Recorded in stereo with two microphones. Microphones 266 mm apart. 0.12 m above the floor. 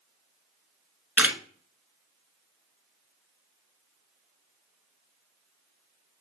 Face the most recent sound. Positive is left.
turn(degrees=-5)  # may be behind; listen again after turning